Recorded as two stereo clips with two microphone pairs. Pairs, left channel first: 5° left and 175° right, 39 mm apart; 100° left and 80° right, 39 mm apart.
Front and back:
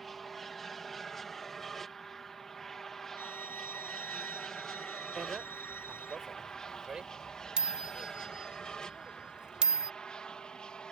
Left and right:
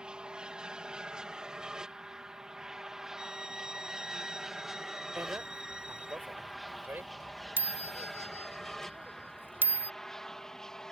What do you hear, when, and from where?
0.0 s an aircraft: 75° right; by 10.9 s 40° left
3.2 s a violin: 5° right
5.2 s a bicycle bell: 105° right